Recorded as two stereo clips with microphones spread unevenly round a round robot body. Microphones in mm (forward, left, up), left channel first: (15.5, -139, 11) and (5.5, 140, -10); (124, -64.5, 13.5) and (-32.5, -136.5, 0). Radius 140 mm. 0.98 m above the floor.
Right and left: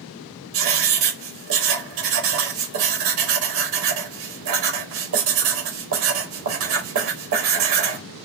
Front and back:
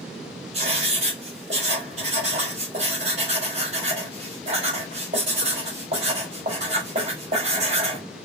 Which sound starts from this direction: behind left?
Writing, at 0.5 s.